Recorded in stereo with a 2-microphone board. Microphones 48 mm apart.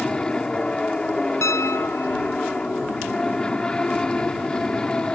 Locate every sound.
0.0 s an aircraft: 15° left (ahead or behind)
1.4 s a piano: 85° left